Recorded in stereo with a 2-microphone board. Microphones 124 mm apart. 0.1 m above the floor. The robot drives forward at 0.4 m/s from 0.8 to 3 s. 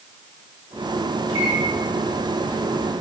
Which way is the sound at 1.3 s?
30° right (ahead or behind).